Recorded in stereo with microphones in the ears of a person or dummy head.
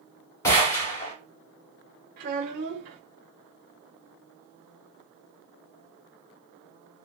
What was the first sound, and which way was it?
A gunshot, 15° left (ahead or behind).